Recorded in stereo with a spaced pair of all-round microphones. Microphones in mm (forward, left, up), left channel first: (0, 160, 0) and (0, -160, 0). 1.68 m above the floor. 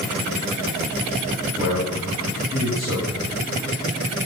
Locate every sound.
1.6 s a man speaking: 30° right (ahead or behind), 3 m